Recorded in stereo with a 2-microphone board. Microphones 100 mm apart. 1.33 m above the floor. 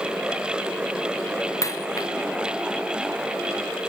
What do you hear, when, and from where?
1.6 s a dropped coin: 35° left (ahead or behind)